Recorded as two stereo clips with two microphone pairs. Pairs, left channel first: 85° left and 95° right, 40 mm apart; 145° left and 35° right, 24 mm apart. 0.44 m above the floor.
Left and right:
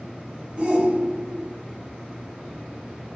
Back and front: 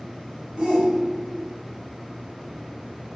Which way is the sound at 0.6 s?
65° right.